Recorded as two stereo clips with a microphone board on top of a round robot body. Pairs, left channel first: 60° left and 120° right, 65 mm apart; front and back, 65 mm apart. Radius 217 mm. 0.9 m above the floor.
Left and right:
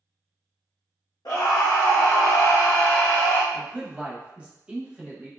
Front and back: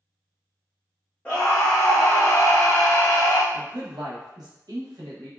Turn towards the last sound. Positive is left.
turn(degrees=165)